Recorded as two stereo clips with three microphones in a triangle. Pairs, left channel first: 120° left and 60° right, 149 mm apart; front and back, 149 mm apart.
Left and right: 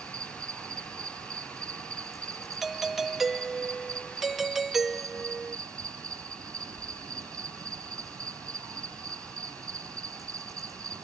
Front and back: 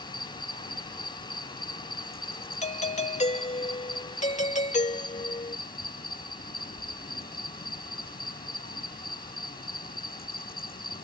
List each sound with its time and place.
0.0 s an insect: 10° left
2.6 s a doorbell: 30° left